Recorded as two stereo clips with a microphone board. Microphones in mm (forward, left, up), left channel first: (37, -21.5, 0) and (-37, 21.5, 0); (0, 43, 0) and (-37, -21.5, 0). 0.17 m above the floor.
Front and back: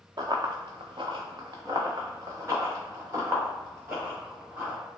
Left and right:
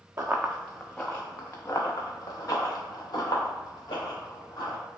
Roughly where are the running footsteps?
Behind.